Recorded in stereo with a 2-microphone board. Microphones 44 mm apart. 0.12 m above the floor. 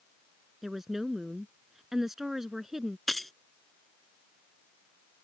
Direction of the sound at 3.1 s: 5° left (ahead or behind).